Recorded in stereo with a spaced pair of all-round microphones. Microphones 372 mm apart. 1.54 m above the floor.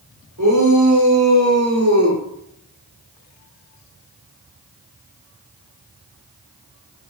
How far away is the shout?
About 8 m.